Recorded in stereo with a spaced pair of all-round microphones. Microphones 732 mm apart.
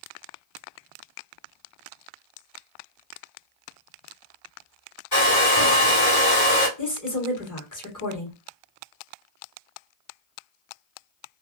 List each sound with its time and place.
5.1 s a hair dryer: 30° left (ahead or behind), 1.8 m
6.8 s a woman speaking: 25° left (ahead or behind), 1.4 m